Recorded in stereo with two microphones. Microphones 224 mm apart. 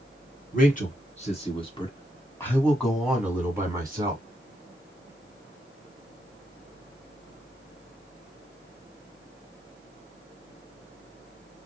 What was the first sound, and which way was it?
A man speaking, 40° left (ahead or behind).